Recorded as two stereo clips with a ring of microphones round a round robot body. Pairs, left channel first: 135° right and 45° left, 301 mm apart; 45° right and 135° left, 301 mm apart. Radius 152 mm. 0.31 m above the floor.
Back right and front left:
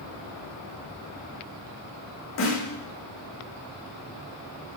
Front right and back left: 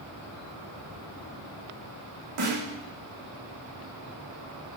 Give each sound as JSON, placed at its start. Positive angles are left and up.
{"t": 2.4, "sound": "a snare drum", "azimuth_deg": 175, "distance_m": 5.0}